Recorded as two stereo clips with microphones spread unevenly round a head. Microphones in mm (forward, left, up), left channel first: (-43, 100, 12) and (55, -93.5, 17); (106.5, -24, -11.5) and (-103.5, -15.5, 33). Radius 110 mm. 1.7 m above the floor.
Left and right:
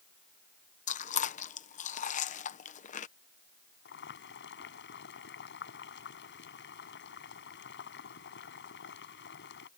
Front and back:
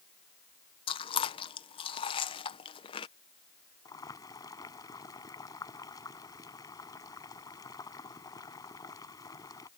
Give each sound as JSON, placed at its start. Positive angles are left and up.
{"t": 0.9, "sound": "chewing", "azimuth_deg": 70}
{"t": 3.9, "sound": "boiling", "azimuth_deg": 75}